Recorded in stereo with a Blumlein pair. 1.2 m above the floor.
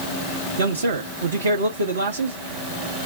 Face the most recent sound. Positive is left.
turn(degrees=-65)